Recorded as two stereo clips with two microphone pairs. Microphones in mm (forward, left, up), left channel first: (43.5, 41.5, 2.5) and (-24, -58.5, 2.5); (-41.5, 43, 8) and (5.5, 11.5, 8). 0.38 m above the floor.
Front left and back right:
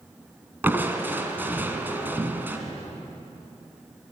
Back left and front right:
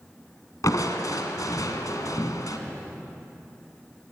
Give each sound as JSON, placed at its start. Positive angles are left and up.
{"t": 0.6, "sound": "crushing", "azimuth_deg": 160, "distance_m": 2.0}